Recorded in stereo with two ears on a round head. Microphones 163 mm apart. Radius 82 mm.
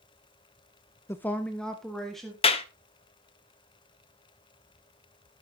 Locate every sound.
1.1 s a woman speaking: 15° left (ahead or behind), 0.5 m; by 2.3 s centre (ahead or behind), 2 m
2.4 s a clap: 30° left (ahead or behind), 0.9 m